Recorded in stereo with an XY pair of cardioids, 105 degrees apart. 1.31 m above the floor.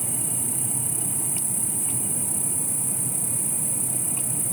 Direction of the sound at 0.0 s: 15° right.